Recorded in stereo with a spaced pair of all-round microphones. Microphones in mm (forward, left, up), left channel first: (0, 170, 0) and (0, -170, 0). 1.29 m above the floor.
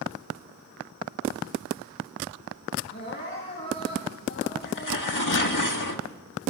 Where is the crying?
30° left (ahead or behind), 10 m.